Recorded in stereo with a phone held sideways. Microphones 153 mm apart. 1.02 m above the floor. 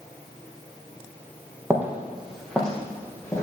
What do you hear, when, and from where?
1.7 s footsteps: 15° right (ahead or behind), 2 m; by 3.4 s 20° left (ahead or behind), 3 m